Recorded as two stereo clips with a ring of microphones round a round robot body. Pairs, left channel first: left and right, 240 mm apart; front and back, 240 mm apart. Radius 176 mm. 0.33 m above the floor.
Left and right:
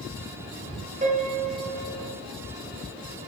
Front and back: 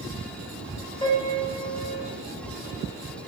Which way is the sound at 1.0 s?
60° right.